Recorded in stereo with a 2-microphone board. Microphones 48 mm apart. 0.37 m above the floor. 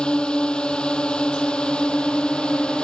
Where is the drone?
20° left (ahead or behind).